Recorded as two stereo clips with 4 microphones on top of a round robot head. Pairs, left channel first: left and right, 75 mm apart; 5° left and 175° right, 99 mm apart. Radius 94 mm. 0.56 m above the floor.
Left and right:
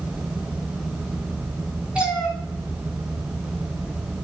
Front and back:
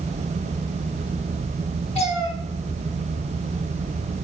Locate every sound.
1.9 s a cat meowing: 15° right, 2.5 m